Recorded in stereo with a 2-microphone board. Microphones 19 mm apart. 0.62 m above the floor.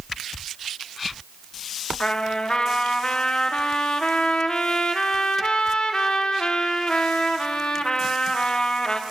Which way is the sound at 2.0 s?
45° left (ahead or behind).